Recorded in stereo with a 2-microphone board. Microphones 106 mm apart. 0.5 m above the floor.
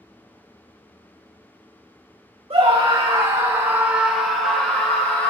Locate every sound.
2.5 s a scream: 60° right (ahead or behind), 1.2 m; by 5.3 s 15° left (ahead or behind), 2 m